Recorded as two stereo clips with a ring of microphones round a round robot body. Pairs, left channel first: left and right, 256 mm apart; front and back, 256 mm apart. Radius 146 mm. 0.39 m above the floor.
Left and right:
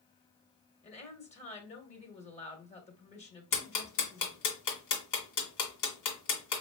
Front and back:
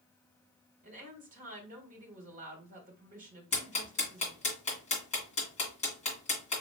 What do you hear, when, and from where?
0.8 s a woman speaking: 140° left, 1.7 m
3.5 s ticking: 65° left, 2 m